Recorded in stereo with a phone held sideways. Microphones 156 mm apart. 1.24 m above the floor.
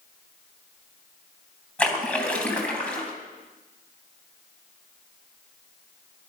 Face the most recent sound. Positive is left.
turn(degrees=5)  # may be behind; listen again after turning